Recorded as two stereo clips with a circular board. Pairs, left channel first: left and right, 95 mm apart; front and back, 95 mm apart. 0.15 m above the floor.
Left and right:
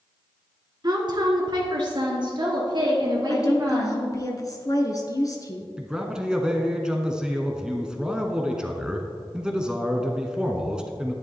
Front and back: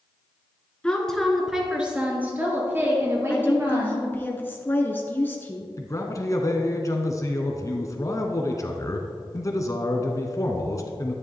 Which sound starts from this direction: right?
A woman speaking, at 0.8 s.